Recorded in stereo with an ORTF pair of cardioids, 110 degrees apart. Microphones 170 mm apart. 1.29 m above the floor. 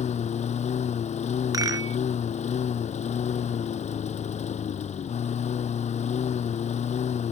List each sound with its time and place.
0.0 s a lawn mower: 40° left
1.5 s a rattle: 20° right